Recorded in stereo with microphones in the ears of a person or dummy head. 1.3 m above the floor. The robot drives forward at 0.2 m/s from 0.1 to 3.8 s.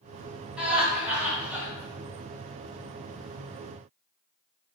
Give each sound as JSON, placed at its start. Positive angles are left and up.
{"t": 0.6, "sound": "laughter", "side_deg": -10, "distance_m": 1.3}